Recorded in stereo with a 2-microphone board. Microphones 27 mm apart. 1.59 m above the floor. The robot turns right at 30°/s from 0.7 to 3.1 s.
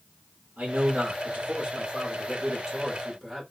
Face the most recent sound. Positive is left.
turn(degrees=10)